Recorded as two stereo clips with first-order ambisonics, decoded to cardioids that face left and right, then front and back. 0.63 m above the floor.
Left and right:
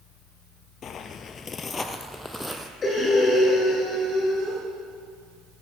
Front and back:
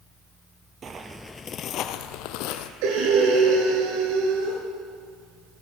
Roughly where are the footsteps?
Behind left.